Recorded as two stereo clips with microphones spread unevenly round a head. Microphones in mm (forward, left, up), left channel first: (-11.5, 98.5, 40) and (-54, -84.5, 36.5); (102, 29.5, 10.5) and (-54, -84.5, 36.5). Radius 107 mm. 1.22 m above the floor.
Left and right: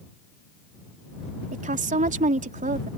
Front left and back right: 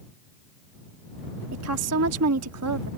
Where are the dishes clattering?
I don't hear dishes clattering.